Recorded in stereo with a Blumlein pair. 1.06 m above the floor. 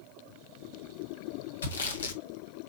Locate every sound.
1.6 s sawing: 65° left, 2.5 m